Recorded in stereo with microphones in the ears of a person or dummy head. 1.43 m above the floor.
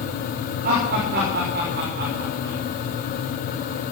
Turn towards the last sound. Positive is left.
turn(degrees=-55)  # may be behind; listen again after turning